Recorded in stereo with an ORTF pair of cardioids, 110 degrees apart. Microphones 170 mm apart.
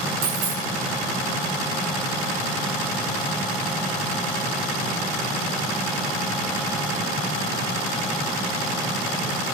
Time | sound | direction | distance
0.2 | a dropped coin | 50° right | 1.5 m